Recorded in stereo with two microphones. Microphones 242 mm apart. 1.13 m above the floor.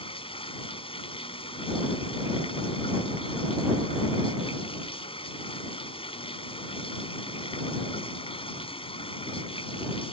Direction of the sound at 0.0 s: 25° left (ahead or behind).